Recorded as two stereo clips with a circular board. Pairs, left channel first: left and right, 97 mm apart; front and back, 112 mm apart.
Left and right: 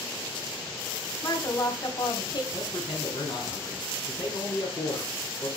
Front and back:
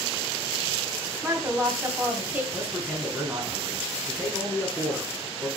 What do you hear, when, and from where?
1.2 s a woman speaking: 115° left, 2 m
2.5 s a man speaking: 105° left, 3.5 m